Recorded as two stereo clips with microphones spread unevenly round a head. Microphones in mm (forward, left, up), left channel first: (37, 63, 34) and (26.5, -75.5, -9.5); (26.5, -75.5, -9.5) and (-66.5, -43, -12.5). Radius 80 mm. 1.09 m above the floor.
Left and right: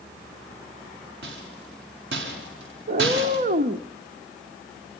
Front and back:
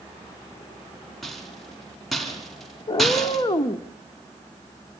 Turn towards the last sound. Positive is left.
turn(degrees=-55)